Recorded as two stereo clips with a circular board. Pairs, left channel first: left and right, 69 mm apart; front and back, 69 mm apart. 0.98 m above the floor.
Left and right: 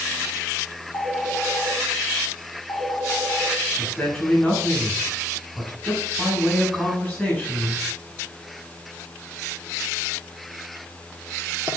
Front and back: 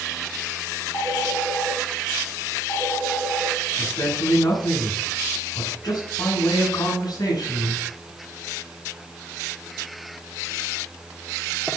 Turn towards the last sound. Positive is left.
turn(degrees=10)